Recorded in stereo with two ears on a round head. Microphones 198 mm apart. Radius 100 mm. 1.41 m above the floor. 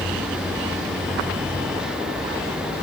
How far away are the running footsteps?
No running footsteps in this recording.